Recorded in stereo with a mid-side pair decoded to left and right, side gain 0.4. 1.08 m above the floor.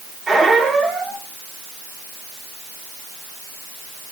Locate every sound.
0.3 s a squeak: 50° right, 2 m